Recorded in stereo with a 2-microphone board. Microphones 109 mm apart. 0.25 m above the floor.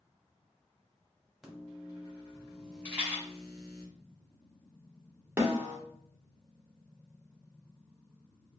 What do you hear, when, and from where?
1.4 s a microwave: 5° right (ahead or behind), 1.0 m
2.9 s a rattle: 15° right (ahead or behind), 1.2 m
5.4 s a snare drum: 25° right (ahead or behind), 0.7 m